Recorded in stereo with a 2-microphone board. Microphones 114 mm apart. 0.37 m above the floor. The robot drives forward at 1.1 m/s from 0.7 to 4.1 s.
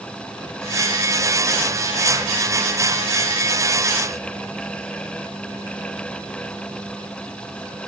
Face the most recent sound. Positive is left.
No sound to turn to.